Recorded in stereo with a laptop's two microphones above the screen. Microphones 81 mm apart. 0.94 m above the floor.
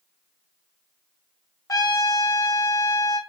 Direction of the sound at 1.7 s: 45° left (ahead or behind).